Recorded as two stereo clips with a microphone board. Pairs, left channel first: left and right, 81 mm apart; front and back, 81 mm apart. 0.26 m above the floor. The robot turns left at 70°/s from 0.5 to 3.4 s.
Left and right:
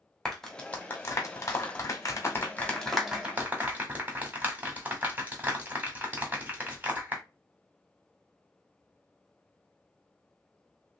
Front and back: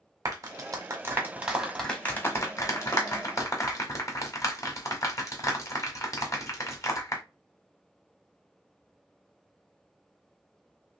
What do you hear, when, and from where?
0.2 s a clap: 175° left, 1.3 m; by 7.2 s 30° right, 1.3 m